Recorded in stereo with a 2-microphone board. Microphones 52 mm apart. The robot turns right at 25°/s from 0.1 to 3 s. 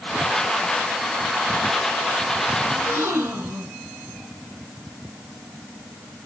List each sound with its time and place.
2.7 s a gasp: 40° right (ahead or behind), 6.5 m; by 3.8 s 45° right (ahead or behind), 6.5 m